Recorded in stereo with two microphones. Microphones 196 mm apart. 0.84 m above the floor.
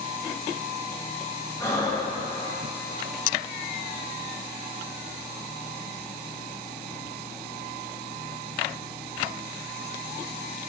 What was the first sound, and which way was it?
Breathing, 15° left (ahead or behind).